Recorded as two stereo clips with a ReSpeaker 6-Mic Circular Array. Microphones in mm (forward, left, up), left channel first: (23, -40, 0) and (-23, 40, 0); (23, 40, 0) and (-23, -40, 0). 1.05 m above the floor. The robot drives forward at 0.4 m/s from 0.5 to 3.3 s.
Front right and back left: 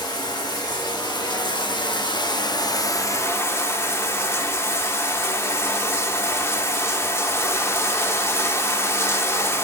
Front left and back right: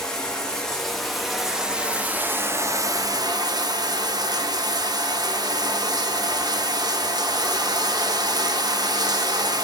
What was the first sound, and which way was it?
Running water, 25° right.